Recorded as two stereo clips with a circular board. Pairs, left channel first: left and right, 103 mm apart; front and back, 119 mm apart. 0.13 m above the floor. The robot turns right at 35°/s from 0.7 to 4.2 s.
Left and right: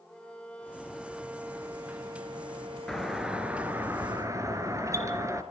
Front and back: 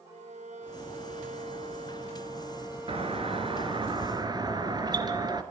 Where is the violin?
170° left, 1.8 m; by 3.9 s 80° right, 1.8 m.